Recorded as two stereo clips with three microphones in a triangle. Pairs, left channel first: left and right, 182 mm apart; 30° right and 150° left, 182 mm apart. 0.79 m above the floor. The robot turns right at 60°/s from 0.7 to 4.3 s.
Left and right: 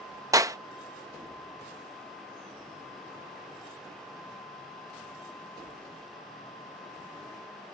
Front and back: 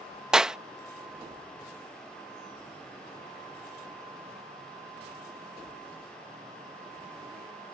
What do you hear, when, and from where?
0.3 s a clap: 125° right